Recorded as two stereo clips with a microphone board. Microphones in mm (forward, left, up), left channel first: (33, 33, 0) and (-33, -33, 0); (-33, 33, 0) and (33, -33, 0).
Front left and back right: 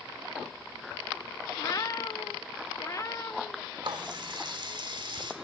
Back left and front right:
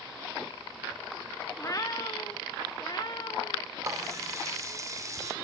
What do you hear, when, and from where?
1.6 s a cat meowing: 90° left, 0.7 m; by 3.7 s 100° left, 2.0 m
3.8 s a running tap: 100° right, 2 m